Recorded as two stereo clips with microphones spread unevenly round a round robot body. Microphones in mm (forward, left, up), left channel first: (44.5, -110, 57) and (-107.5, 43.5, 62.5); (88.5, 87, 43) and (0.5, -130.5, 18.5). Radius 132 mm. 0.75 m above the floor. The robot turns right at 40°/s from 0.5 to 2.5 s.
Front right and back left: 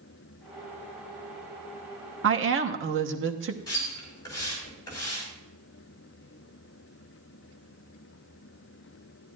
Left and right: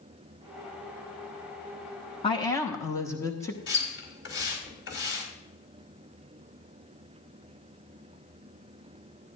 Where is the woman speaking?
135° left, 1.2 m; by 3.6 s 150° left, 1.2 m.